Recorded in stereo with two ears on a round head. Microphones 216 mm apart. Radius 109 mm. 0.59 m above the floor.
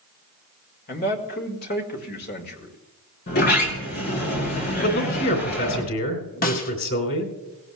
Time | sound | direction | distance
0.9 | a man speaking | 40° left (ahead or behind) | 1.7 m
3.3 | a sliding door | 40° left (ahead or behind) | 3 m
4.8 | a man speaking | 55° left (ahead or behind) | 2.5 m
6.4 | a snare drum | 35° left (ahead or behind) | 1.2 m